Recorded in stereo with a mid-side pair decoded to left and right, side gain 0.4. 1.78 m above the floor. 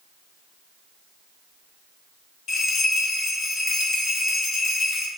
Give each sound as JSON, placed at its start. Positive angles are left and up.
{"t": 2.5, "sound": "a bell", "azimuth_deg": 60, "distance_m": 0.7}